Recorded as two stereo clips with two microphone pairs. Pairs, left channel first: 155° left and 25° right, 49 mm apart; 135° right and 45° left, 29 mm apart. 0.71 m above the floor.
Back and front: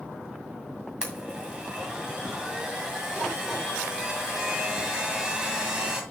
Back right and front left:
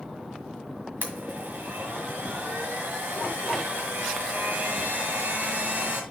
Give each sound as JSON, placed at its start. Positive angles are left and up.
{"t": 1.0, "sound": "a blender", "azimuth_deg": 50, "distance_m": 1.8}